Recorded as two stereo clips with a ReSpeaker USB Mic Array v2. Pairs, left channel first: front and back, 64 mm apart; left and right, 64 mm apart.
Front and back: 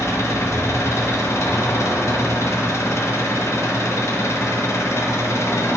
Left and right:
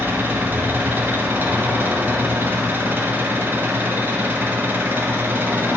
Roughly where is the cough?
No cough in this recording.